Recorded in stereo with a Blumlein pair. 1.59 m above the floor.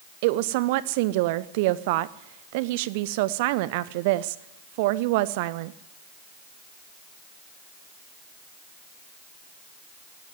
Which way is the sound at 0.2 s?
50° right.